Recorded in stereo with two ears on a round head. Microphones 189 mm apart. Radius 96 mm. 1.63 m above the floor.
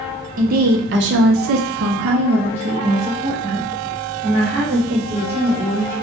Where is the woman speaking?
40° right (ahead or behind), 0.9 m; by 5.9 s 10° right (ahead or behind), 2.5 m.